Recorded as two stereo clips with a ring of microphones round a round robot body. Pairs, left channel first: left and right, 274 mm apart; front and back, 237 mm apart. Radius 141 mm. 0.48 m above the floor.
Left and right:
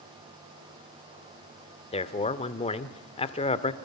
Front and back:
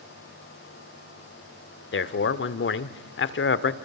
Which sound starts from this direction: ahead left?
A man speaking, at 1.9 s.